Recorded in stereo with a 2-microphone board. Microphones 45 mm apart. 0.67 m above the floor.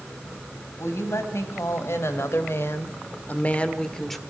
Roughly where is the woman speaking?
Left.